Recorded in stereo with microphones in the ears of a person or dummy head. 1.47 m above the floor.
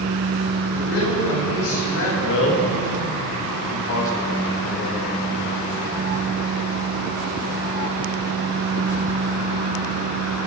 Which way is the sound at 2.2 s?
75° left (ahead or behind).